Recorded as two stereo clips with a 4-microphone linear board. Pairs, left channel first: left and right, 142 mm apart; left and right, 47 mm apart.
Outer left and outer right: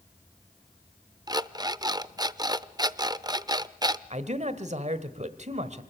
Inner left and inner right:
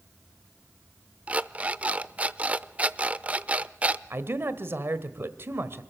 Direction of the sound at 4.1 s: 55° right (ahead or behind).